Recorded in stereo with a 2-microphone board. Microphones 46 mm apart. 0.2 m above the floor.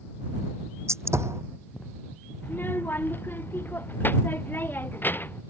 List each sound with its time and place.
0.9 s a gunshot: 75° right (ahead or behind)
2.4 s a child speaking: 45° left (ahead or behind)